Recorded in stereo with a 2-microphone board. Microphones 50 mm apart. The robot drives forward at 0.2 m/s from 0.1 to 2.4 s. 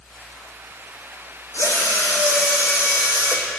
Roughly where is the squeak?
I don't hear a squeak.